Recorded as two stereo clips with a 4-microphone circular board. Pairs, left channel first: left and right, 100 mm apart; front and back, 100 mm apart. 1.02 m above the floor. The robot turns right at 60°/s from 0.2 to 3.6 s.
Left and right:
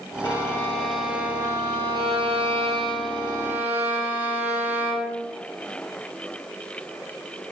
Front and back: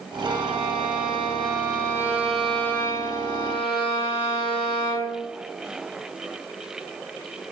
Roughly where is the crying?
No crying in this recording.